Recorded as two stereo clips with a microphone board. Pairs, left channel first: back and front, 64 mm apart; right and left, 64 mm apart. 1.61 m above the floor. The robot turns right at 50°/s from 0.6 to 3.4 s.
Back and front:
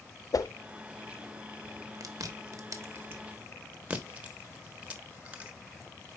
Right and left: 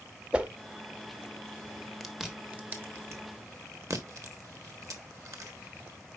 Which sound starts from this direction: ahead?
Chewing, at 2.0 s.